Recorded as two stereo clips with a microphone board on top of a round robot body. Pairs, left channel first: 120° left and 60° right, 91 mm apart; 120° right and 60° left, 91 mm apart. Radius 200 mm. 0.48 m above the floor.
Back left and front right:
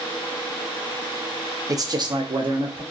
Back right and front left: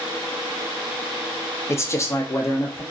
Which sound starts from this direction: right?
A man speaking, at 1.7 s.